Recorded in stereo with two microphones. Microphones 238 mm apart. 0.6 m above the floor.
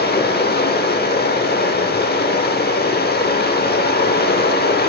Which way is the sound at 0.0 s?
40° left (ahead or behind).